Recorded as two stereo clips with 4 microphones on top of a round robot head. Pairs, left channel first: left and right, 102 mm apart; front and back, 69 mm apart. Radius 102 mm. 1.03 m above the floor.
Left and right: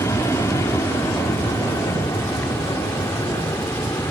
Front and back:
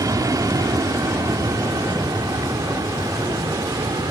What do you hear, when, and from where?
0.0 s an aircraft: 155° left; by 4.1 s 160° left